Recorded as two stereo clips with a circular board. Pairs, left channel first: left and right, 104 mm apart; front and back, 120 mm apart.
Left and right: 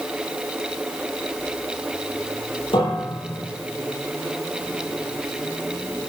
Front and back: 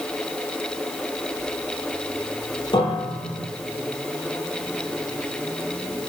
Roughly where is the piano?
Ahead left.